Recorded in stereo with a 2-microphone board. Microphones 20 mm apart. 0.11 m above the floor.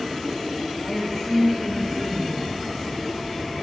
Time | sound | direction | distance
0.8 | a woman speaking | 5° right (ahead or behind) | 10 m